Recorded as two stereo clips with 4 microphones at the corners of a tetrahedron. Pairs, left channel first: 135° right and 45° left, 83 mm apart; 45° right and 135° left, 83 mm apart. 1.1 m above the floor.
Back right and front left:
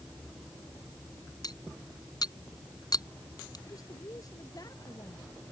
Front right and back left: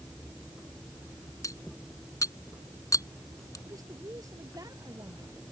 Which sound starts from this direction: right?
Cutlery clinking, at 1.4 s.